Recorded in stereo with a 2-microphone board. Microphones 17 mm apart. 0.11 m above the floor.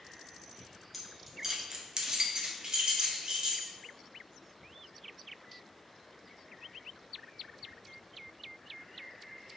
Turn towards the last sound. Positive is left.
turn(degrees=-50)  # may be behind; listen again after turning